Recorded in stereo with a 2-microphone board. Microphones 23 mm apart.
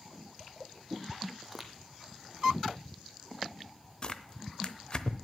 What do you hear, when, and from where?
1.4 s footsteps: centre (ahead or behind), 1.0 m
4.0 s tearing paper: 35° left (ahead or behind), 0.7 m